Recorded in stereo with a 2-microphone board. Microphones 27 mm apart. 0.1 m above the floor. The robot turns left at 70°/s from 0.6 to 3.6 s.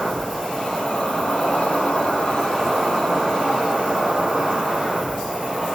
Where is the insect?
160° left, 1.1 m; by 5.8 s 50° right, 1.1 m.